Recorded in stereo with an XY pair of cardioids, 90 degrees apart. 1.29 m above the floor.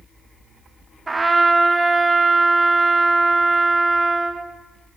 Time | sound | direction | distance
1.1 | a trumpet | 25° right | 1.0 m